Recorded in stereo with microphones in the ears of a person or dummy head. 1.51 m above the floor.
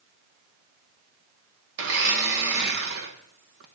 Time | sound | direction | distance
1.8 | a blender | 55° right (ahead or behind) | 0.6 m